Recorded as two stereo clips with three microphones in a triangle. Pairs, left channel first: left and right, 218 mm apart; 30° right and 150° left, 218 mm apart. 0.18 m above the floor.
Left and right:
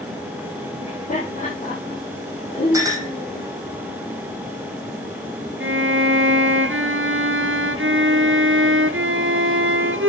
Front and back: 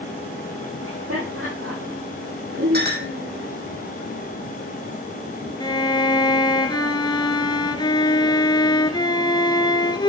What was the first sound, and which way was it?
Laughter, 145° left.